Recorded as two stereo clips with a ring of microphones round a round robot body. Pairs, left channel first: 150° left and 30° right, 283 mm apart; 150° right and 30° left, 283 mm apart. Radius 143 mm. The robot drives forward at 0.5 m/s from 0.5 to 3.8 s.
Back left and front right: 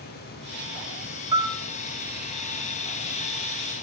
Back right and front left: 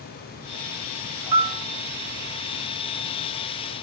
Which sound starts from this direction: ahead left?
A piano, at 1.3 s.